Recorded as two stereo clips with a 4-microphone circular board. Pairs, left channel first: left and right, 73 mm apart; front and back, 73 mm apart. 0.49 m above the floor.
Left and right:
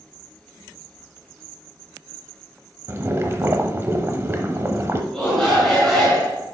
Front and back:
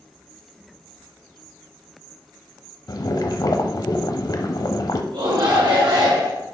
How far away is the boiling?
About 0.8 m.